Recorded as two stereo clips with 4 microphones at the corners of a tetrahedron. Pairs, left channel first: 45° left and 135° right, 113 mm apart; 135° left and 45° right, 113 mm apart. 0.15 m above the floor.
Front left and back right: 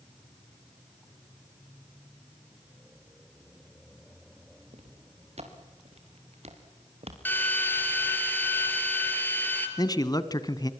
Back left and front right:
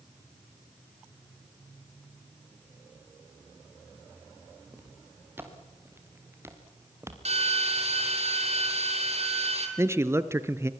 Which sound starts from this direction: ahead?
A man speaking, at 9.8 s.